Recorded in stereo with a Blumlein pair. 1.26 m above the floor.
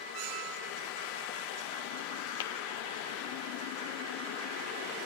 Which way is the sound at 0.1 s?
45° right.